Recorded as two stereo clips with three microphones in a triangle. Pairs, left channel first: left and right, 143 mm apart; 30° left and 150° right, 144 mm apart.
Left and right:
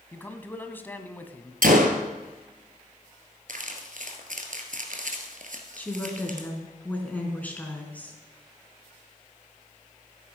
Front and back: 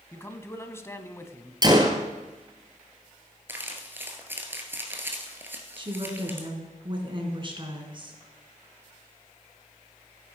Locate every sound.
0.1 s a man speaking: 45° left, 1.1 m
1.6 s a gunshot: 90° right, 1.8 m
3.5 s crumpling: 75° right, 1.9 m
5.8 s a woman speaking: 165° left, 2.5 m